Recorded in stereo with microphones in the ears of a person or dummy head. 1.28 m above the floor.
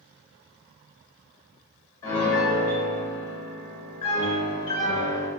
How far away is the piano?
About 0.9 m.